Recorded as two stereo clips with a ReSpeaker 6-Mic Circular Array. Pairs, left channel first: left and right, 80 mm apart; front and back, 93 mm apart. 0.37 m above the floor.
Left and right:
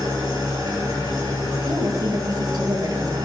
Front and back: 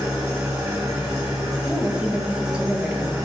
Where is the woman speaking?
105° right, 1.6 m.